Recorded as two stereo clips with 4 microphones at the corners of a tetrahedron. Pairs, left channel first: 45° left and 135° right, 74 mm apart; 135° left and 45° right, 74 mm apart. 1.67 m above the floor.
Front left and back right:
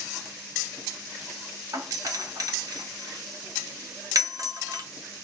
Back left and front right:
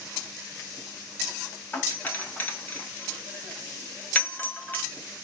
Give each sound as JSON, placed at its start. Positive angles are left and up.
{"t": 1.7, "sound": "a doorbell", "azimuth_deg": -165, "distance_m": 0.9}